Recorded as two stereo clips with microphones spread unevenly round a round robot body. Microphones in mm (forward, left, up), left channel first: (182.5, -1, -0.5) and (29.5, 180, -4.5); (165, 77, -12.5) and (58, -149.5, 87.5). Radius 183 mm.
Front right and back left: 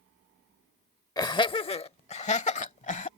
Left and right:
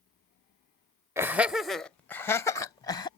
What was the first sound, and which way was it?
Laughter, 5° left.